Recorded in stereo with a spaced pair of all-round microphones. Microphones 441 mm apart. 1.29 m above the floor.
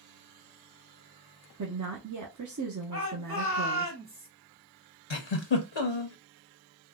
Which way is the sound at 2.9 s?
55° right (ahead or behind).